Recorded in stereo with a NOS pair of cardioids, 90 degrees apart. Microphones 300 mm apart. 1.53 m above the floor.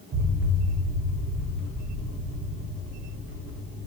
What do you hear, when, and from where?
0.1 s an explosion: 55° right, 3 m